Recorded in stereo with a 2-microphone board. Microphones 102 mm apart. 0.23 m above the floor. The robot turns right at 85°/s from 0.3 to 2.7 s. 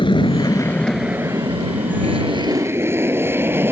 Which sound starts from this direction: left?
An aircraft, at 0.0 s.